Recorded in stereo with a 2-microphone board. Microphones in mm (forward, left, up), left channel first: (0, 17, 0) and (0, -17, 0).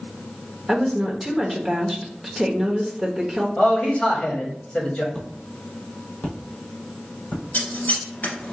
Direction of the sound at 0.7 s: 5° left (ahead or behind).